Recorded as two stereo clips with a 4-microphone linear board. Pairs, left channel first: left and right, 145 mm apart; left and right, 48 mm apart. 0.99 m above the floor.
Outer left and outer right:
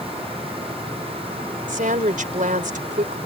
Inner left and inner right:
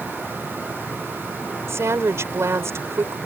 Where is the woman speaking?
65° right (ahead or behind).